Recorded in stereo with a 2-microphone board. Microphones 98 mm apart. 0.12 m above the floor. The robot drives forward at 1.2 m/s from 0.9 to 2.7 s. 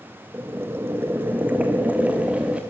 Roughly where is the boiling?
Right.